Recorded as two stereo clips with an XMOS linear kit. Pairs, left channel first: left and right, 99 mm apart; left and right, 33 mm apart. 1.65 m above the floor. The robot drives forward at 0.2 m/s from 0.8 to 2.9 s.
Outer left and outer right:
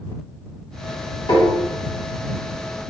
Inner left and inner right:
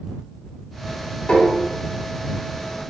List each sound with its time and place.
1.3 s tapping: 50° left (ahead or behind), 1.6 m